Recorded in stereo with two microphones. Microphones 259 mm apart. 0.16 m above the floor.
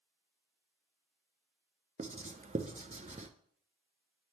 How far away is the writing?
About 0.5 m.